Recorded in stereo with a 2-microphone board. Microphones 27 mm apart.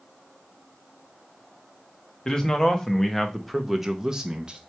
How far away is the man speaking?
About 1.3 m.